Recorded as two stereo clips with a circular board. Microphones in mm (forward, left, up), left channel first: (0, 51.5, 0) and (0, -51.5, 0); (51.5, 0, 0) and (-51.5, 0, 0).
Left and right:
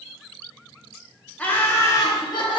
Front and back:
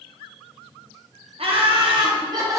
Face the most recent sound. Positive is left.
turn(degrees=125)